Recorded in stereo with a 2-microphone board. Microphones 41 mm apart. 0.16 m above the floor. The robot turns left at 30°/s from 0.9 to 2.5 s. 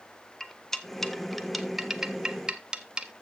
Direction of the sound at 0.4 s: 10° left (ahead or behind).